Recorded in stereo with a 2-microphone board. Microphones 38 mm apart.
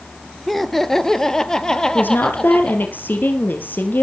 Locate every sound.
0.5 s laughter: centre (ahead or behind), 1.3 m; by 3.0 s 20° left (ahead or behind), 3.5 m
1.9 s a woman speaking: 60° left (ahead or behind), 3 m